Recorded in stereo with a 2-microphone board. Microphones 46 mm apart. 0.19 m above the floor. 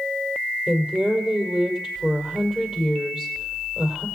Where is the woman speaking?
20° right (ahead or behind), 4.5 m.